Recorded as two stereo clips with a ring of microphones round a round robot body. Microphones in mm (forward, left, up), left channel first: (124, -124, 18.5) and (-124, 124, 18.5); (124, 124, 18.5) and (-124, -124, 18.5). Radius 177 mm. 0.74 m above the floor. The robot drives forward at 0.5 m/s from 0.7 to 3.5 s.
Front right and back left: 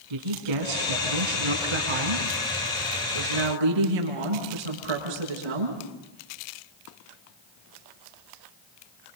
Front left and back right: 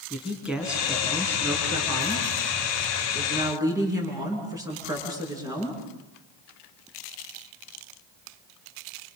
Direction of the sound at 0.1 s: 135° left.